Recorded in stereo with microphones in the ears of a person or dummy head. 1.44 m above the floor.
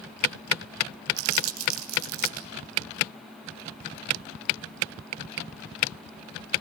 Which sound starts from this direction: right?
Crumpling, at 1.2 s.